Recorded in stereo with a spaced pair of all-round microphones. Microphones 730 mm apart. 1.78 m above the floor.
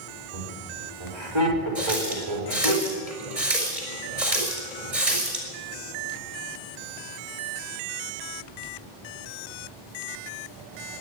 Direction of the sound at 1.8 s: 45° right (ahead or behind).